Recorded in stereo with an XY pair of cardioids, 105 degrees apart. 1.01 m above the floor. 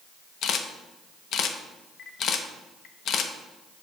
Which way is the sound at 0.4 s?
65° left.